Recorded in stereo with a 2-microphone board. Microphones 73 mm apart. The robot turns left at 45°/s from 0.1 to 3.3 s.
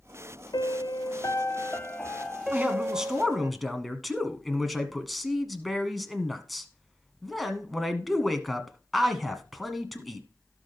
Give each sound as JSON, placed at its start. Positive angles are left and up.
{"t": 0.5, "sound": "a piano", "azimuth_deg": 85, "distance_m": 0.9}
{"t": 2.5, "sound": "a man speaking", "azimuth_deg": -145, "distance_m": 1.5}